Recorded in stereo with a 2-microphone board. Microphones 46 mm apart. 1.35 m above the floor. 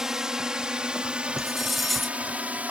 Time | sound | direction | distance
0.0 | a drone | 10° right (ahead or behind) | ?
1.4 | cutlery clinking | centre (ahead or behind) | ?